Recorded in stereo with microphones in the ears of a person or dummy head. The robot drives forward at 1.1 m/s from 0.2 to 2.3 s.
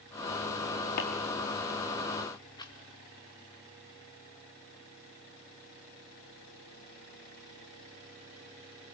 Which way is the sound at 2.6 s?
25° left (ahead or behind).